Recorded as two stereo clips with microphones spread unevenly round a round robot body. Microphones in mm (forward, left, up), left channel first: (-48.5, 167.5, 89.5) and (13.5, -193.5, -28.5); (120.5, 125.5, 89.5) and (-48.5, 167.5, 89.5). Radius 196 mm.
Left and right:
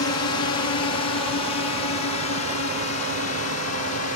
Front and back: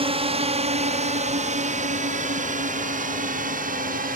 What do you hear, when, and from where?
0.0 s a drone: 140° left; by 4.2 s 150° left